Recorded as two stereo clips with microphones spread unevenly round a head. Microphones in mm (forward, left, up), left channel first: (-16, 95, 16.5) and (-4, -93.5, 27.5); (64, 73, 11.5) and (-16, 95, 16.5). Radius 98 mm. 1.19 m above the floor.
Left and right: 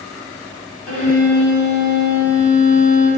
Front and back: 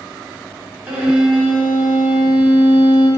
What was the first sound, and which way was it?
A violin, 90° left.